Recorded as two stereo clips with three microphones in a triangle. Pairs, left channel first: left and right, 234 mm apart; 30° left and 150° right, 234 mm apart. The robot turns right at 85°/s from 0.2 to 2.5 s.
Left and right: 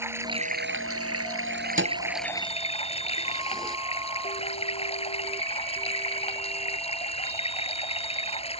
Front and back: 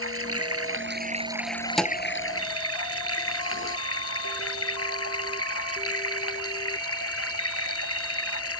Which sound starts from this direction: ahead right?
A thud, at 1.8 s.